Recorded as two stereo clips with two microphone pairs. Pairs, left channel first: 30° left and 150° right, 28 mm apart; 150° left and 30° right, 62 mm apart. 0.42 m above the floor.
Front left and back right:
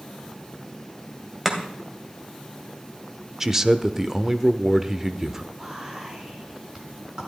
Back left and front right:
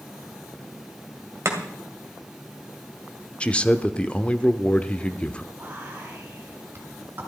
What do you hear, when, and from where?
1.4 s chopping: 70° right, 2.5 m
3.4 s a man speaking: 165° left, 0.7 m
5.5 s whispering: 85° right, 5 m